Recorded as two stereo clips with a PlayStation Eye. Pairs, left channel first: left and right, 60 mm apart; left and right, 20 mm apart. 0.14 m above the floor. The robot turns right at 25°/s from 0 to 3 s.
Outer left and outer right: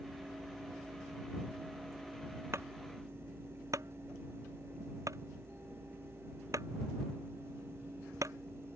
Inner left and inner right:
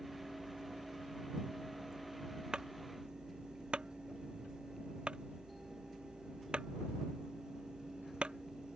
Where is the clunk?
45° right (ahead or behind); by 8.4 s 55° right (ahead or behind).